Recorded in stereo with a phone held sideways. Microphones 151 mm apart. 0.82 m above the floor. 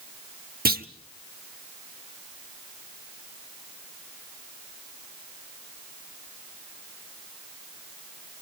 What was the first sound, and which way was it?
A clunk, 80° right.